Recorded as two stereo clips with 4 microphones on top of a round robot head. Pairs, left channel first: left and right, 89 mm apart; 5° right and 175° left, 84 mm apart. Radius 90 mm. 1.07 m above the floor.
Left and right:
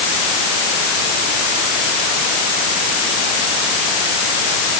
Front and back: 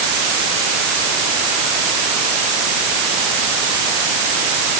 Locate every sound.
Only background noise.